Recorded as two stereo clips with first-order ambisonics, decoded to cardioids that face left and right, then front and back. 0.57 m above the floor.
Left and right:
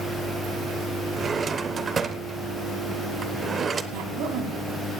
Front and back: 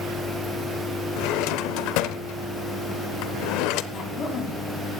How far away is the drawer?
About 0.7 m.